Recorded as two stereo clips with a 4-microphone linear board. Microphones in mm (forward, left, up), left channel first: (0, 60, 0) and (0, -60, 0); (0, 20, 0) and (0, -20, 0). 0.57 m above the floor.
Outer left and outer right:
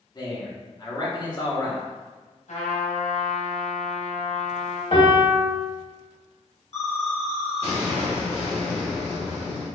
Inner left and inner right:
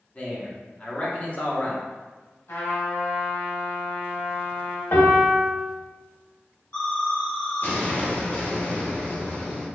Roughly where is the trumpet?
Left.